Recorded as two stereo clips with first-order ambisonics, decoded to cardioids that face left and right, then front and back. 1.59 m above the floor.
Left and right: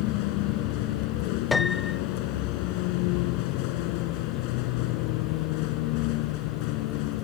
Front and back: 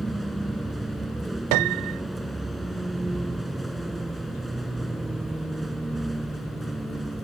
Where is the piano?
165° left.